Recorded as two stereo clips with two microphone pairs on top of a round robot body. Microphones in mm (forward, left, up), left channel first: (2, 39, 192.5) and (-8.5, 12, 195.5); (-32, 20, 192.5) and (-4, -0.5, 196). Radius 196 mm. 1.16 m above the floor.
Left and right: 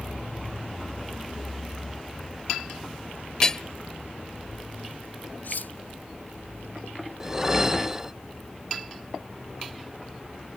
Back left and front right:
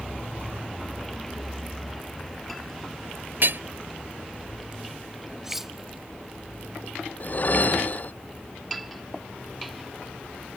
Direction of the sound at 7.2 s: 175° left.